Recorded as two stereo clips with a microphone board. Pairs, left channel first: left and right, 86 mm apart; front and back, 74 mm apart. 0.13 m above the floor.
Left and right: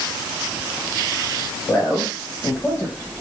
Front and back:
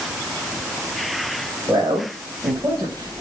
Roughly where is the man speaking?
Behind left.